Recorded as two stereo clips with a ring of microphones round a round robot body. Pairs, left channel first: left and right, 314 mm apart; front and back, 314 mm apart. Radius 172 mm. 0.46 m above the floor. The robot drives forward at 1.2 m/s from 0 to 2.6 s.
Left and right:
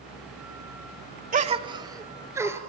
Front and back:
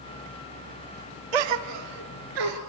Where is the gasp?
160° right, 0.8 m; by 2.6 s 175° right, 2 m.